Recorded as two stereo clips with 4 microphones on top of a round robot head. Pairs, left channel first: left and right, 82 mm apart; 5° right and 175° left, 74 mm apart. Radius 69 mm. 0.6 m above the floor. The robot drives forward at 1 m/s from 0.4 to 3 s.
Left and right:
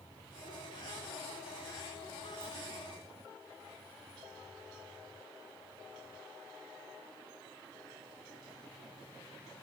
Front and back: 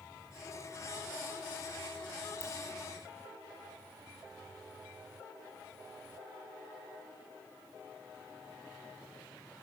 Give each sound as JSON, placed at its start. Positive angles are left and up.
{"t": 2.4, "sound": "a ringtone", "azimuth_deg": 5, "distance_m": 0.9}